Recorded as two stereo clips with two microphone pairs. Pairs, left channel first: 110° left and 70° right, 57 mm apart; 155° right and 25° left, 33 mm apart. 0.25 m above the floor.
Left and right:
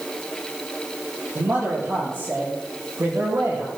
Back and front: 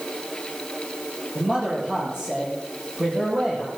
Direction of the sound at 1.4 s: 25° right.